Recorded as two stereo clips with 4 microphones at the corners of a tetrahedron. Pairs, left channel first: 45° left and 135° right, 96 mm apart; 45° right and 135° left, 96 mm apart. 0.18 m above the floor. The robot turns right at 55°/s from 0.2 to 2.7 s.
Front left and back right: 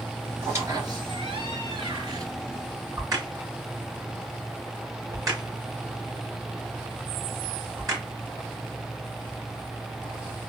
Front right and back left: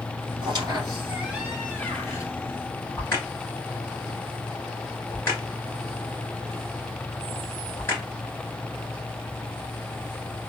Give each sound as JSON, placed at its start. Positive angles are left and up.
{"t": 0.4, "sound": "a squeak", "azimuth_deg": 160, "distance_m": 2.0}
{"t": 3.0, "sound": "a crack", "azimuth_deg": -95, "distance_m": 2.5}